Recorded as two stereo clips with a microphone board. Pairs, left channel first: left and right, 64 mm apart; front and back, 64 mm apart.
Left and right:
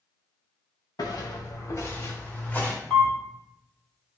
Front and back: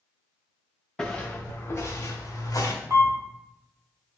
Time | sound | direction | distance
1.0 | footsteps | 80° left | 0.7 m
2.9 | a camera shutter | 160° left | 1.0 m